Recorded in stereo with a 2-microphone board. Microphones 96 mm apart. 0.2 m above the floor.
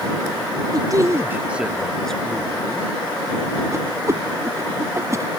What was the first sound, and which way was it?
A man speaking, 45° right (ahead or behind).